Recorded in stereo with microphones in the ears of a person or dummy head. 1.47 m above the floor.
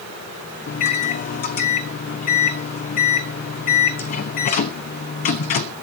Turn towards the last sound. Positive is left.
turn(degrees=40)  # may be behind; listen again after turning